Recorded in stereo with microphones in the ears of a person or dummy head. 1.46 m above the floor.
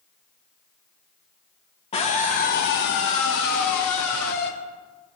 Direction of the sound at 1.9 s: 30° left (ahead or behind).